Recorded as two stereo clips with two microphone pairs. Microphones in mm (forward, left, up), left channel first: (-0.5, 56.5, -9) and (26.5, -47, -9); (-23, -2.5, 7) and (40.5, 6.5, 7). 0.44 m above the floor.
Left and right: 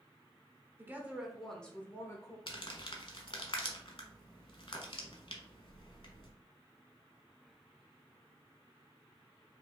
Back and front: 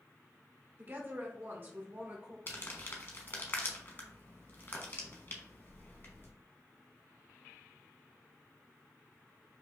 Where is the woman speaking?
25° right, 0.9 m; by 2.4 s 60° left, 1.0 m.